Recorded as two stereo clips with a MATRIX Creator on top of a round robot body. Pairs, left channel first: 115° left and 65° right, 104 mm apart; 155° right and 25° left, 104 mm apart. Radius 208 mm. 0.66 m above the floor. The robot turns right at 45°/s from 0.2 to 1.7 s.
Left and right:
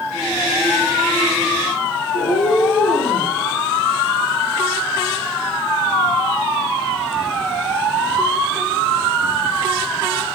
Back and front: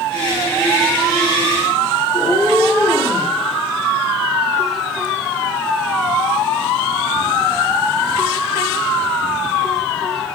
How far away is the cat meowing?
About 6 m.